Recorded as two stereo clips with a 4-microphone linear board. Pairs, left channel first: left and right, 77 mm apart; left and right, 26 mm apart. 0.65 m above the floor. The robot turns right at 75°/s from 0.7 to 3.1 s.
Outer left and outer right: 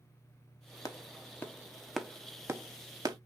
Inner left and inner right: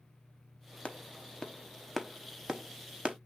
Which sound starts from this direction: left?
A clap, at 0.8 s.